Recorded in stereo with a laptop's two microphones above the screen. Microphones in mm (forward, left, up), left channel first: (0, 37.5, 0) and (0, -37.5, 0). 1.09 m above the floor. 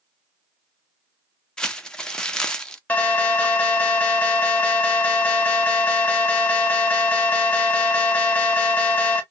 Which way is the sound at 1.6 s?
10° left (ahead or behind).